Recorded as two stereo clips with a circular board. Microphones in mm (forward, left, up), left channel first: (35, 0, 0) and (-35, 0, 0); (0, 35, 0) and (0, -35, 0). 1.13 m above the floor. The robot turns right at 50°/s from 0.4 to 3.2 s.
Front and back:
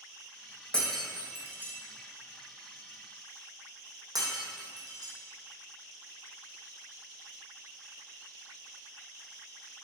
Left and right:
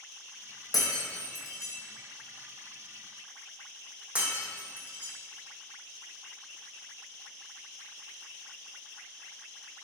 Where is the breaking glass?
80° left, 3 m; by 5.1 s 160° right, 3 m.